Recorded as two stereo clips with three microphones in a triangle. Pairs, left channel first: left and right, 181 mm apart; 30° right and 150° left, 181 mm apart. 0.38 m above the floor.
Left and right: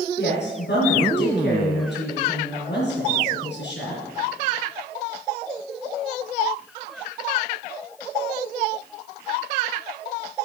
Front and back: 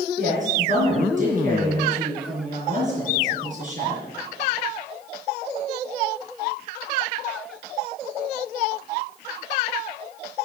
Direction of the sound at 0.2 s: 105° left.